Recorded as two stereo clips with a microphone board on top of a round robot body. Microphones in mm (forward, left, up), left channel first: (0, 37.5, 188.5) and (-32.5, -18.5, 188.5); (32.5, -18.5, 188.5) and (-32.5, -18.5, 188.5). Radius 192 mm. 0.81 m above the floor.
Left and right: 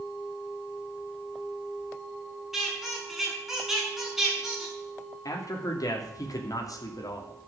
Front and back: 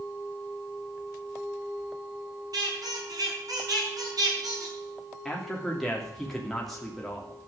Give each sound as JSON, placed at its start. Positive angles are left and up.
{"t": 2.5, "sound": "a squeak", "azimuth_deg": 150, "distance_m": 6.5}
{"t": 5.2, "sound": "a man speaking", "azimuth_deg": 85, "distance_m": 3.0}